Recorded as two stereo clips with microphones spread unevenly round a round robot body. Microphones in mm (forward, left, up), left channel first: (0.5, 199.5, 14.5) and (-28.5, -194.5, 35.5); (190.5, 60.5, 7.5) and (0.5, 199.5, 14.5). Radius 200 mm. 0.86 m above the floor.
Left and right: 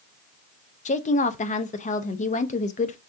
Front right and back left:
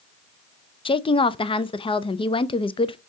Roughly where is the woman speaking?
Ahead left.